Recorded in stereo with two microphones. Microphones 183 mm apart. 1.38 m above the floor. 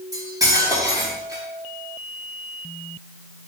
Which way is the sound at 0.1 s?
20° right (ahead or behind).